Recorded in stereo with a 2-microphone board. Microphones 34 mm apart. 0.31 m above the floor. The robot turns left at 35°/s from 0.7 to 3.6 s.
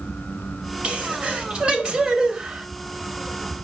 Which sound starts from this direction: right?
A sneeze, at 0.8 s.